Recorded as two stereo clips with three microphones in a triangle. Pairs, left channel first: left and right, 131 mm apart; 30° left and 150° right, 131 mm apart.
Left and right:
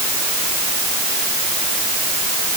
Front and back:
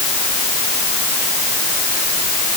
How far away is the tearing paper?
I don't hear tearing paper.